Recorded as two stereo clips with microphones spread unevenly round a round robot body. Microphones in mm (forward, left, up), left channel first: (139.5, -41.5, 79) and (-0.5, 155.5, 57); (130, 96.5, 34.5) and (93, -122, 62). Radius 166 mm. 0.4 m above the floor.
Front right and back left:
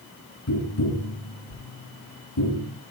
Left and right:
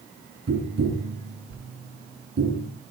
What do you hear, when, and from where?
0.5 s tapping: 65° right, 7 m